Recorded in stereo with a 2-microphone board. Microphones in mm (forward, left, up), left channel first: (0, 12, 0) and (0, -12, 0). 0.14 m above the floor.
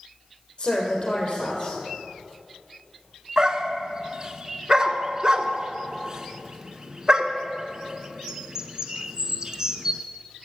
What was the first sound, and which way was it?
A woman speaking, 60° left (ahead or behind).